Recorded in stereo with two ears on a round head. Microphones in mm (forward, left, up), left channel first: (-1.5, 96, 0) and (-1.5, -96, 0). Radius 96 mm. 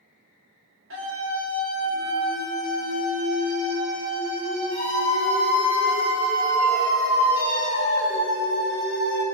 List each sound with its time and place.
0.9 s a scream: 65° right (ahead or behind), 1.7 m; by 9.2 s 80° right, 5.5 m